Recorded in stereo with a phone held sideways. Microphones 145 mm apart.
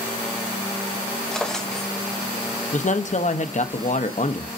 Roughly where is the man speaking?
Left.